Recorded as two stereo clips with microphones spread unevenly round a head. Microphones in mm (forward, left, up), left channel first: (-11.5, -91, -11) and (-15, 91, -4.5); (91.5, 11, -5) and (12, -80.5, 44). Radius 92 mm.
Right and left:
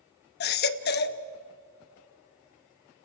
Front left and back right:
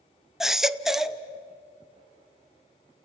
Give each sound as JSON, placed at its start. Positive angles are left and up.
{"t": 0.4, "sound": "a baby crying", "azimuth_deg": -50, "distance_m": 0.8}